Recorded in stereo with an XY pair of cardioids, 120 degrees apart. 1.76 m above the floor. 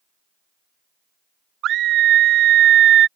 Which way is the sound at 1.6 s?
65° right.